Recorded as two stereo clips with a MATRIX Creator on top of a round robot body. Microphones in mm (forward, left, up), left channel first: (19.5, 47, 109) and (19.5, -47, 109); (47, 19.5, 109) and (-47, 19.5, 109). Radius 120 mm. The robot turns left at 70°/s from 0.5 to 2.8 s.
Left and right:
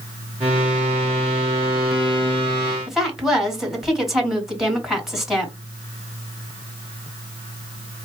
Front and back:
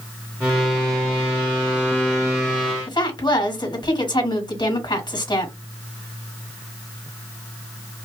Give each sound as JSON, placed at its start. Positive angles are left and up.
{"t": 2.9, "sound": "a woman speaking", "azimuth_deg": -5, "distance_m": 2.0}